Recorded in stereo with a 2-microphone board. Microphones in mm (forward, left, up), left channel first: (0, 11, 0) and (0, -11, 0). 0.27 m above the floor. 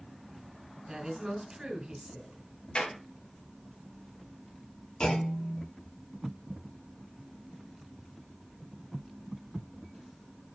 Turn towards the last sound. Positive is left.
turn(degrees=50)  # may be behind; listen again after turning